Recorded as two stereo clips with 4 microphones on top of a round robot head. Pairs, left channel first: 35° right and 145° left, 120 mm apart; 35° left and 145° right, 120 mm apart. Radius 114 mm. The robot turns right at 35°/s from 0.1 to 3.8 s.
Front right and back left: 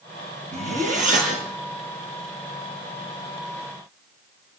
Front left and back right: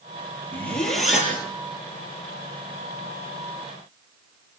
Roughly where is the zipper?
Left.